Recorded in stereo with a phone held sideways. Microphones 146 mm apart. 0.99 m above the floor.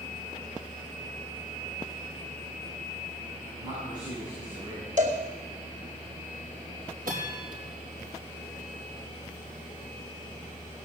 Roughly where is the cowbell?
Right.